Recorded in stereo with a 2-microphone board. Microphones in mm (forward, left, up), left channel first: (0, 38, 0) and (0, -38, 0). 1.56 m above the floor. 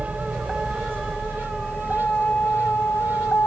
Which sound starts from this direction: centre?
A vehicle, at 0.0 s.